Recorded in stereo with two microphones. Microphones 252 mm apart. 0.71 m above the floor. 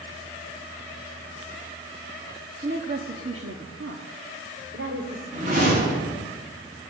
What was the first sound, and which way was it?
A woman speaking, 35° right (ahead or behind).